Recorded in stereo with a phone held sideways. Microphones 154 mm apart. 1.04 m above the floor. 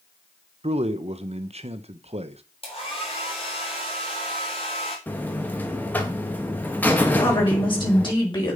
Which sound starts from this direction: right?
A man speaking, at 0.6 s.